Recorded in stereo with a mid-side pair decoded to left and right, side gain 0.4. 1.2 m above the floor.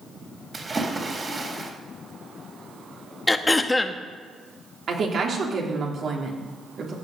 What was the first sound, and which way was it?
A splash, 35° right.